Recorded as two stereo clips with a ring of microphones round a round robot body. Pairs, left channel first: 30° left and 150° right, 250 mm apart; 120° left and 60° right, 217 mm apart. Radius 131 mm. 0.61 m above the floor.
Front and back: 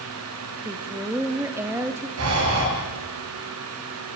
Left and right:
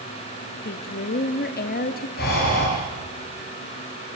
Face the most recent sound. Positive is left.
turn(degrees=175)